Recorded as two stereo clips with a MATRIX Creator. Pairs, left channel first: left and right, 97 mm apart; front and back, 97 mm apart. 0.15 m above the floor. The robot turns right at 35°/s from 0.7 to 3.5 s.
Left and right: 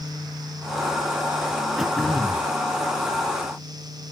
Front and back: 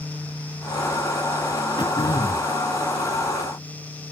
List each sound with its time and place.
1.8 s throat clearing: straight ahead, 0.9 m; by 2.5 s 25° left, 0.9 m